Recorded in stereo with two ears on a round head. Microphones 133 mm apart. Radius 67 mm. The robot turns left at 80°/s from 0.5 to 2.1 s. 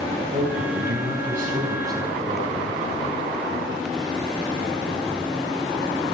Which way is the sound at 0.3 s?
40° right.